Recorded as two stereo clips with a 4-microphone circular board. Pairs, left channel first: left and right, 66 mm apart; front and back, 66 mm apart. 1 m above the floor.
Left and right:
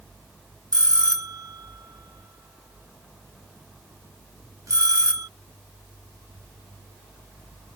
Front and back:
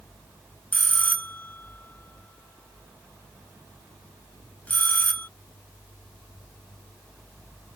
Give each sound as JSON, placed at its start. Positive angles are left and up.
{"t": 0.7, "sound": "a bell", "azimuth_deg": -65}